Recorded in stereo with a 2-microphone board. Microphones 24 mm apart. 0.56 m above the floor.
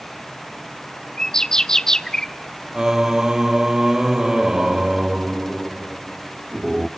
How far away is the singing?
About 0.7 m.